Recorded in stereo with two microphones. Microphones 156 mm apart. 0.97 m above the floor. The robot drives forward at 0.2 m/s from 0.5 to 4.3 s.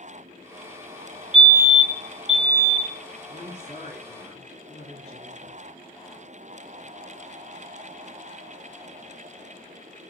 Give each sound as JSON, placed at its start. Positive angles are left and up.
{"t": 1.3, "sound": "a fire alarm", "side_deg": 35, "distance_m": 1.9}
{"t": 3.3, "sound": "a woman speaking", "side_deg": 45, "distance_m": 3.0}